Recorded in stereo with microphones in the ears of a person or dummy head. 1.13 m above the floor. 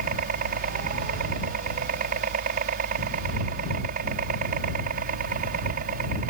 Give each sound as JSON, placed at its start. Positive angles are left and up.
{"t": 0.0, "sound": "a helicopter", "side_deg": -50}